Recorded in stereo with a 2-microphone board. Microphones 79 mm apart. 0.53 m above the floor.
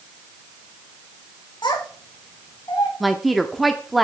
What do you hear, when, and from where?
1.6 s a child speaking: 65° left (ahead or behind), 1.6 m; by 2.9 s 55° left (ahead or behind), 2.5 m
3.0 s a woman speaking: centre (ahead or behind), 0.7 m